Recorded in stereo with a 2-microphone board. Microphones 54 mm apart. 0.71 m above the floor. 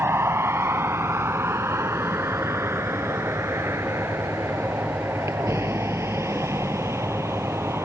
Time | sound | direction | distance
0.0 | a vehicle | 55° right (ahead or behind) | ?